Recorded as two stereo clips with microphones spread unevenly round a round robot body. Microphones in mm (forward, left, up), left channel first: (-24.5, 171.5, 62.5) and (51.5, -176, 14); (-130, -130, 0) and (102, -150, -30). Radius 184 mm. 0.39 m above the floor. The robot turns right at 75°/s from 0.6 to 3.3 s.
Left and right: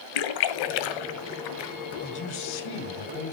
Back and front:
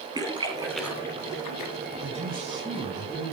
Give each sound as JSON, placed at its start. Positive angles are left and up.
{"t": 0.1, "sound": "a splash", "azimuth_deg": 70, "distance_m": 1.6}
{"t": 2.0, "sound": "a man speaking", "azimuth_deg": 30, "distance_m": 2.5}